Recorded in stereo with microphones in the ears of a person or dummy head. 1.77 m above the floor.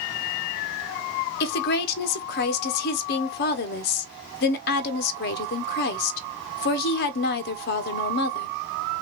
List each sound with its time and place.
1.4 s a woman speaking: 60° left (ahead or behind), 1.1 m